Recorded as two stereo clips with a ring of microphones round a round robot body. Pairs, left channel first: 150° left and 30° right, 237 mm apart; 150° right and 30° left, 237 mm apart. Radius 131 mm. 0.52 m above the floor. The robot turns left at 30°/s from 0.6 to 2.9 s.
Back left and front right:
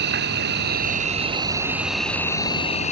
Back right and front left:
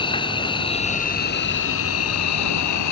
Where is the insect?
80° right; by 2.9 s 150° right.